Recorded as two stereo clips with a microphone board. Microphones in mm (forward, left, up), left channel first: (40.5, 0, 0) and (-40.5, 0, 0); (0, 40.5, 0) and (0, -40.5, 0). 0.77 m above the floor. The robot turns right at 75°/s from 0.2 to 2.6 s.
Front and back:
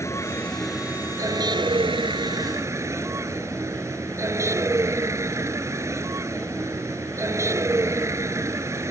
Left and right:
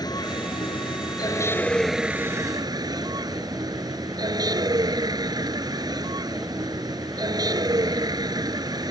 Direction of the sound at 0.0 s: 55° left.